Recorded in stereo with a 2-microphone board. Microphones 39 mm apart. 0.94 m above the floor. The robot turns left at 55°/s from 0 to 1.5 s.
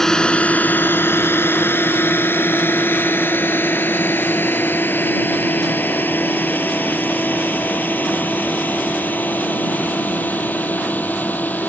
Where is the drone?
10° left (ahead or behind); by 11.7 s 50° left (ahead or behind).